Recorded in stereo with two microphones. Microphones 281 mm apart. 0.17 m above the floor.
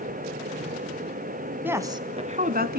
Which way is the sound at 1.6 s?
5° right (ahead or behind).